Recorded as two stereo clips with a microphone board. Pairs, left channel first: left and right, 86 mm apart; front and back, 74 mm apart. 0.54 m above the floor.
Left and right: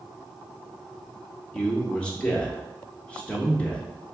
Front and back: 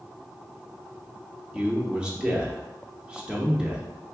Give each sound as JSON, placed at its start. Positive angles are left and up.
{"t": 1.5, "sound": "a man speaking", "azimuth_deg": 130, "distance_m": 0.7}